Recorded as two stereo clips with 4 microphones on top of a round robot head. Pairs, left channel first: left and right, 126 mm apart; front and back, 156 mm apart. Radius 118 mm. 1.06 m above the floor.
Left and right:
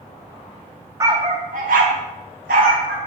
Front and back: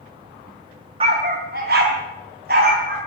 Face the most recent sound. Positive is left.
turn(degrees=-130)